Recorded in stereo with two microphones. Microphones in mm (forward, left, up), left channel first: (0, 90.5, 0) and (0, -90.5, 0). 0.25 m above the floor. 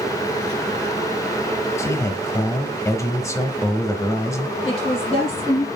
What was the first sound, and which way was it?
A man speaking, 20° left (ahead or behind).